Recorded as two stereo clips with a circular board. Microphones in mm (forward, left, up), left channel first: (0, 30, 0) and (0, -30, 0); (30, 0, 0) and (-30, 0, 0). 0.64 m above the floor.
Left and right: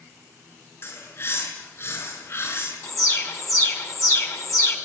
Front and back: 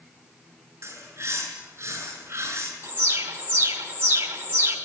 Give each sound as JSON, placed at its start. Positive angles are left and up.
{"t": 0.8, "sound": "a bird", "azimuth_deg": 135, "distance_m": 6.5}
{"t": 2.8, "sound": "an alarm", "azimuth_deg": 125, "distance_m": 3.0}